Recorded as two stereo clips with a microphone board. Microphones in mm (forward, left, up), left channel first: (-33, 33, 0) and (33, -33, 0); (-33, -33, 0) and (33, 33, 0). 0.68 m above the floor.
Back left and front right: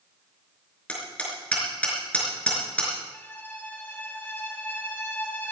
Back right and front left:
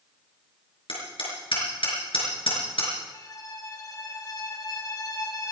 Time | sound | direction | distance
0.9 | hammering | 150° right | 5 m
3.1 | a violin | 160° right | 1.4 m